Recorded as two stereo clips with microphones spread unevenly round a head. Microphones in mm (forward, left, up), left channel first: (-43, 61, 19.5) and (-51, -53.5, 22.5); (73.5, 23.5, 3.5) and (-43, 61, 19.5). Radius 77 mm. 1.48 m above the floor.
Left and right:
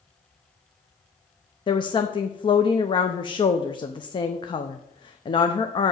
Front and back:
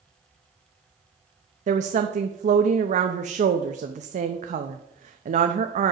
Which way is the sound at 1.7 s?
135° left.